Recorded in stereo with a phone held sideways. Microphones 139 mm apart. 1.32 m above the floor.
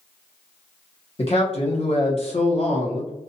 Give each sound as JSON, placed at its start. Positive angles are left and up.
{"t": 1.2, "sound": "a man speaking", "side_deg": 45, "distance_m": 1.1}